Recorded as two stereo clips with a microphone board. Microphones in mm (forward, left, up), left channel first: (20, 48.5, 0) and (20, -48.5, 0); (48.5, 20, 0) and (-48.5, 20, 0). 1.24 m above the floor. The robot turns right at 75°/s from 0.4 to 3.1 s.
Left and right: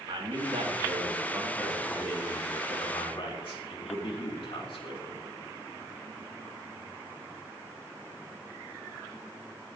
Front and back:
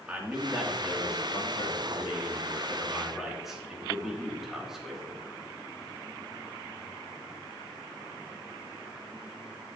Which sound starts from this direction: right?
A man speaking, at 0.1 s.